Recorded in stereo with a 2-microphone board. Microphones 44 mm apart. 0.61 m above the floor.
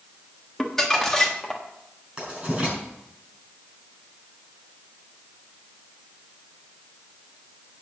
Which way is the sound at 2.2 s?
20° right (ahead or behind).